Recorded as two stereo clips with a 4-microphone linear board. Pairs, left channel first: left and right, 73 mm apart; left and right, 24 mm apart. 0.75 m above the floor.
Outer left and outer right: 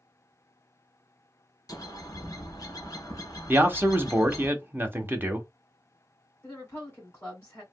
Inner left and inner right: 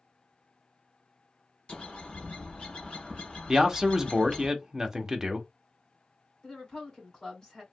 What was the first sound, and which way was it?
A bird, 55° left (ahead or behind).